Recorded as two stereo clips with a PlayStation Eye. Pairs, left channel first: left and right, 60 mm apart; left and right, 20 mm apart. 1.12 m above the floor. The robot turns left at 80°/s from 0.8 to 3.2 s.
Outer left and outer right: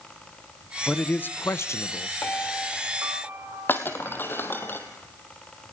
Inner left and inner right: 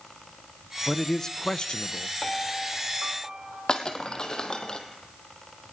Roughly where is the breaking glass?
Left.